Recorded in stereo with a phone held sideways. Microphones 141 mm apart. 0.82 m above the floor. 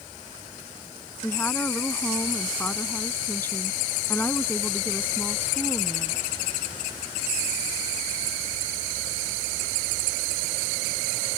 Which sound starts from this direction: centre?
A woman speaking, at 1.2 s.